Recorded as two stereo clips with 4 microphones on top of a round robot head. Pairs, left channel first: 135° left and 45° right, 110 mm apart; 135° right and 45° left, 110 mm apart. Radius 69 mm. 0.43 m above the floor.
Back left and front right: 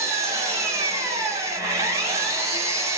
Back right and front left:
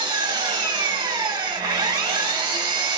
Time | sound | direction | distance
0.0 | an engine running | 10° left | 1.1 m